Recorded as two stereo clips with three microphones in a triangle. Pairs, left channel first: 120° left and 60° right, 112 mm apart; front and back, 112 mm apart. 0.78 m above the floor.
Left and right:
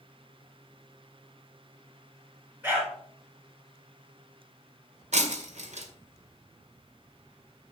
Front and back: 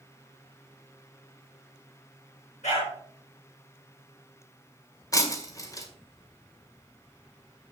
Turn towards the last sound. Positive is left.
turn(degrees=-60)